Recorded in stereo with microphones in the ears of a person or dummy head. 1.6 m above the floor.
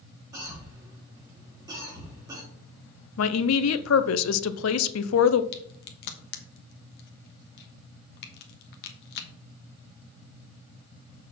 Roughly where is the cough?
Centre.